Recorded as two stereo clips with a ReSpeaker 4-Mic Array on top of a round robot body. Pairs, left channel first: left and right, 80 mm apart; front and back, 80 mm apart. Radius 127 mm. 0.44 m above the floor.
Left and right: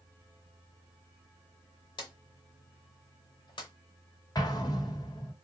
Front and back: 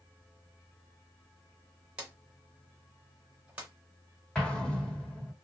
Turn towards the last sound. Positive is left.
turn(degrees=80)